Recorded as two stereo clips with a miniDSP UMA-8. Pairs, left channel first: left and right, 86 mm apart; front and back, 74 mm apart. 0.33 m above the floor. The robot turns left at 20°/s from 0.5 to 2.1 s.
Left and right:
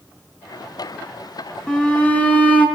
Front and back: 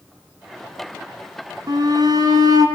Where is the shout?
170° left, 3.5 m; by 2.7 s 160° left, 3.5 m.